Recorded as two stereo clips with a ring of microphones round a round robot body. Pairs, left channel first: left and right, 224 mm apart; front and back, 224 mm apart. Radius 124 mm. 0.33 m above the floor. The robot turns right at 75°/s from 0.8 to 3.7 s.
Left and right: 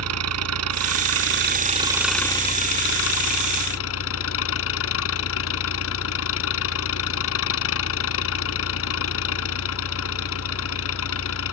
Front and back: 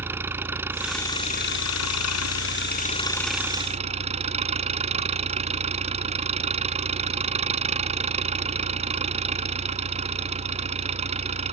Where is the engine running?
100° right; by 11.5 s 120° left.